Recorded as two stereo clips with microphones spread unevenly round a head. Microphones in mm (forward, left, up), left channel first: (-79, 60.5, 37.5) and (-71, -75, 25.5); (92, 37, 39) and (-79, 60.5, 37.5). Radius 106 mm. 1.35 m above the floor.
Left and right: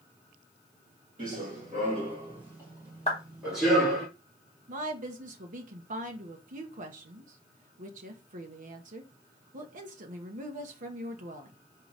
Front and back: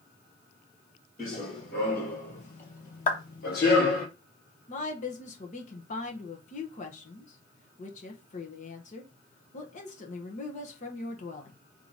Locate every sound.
1.2 s running footsteps: 50° right, 2 m; by 4.1 s 15° left, 2.5 m
3.1 s a clap: 35° left, 0.8 m
4.7 s a woman speaking: 60° right, 0.9 m